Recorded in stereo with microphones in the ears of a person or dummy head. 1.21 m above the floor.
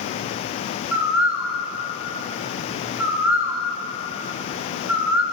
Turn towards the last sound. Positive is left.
turn(degrees=-10)  # may be behind; listen again after turning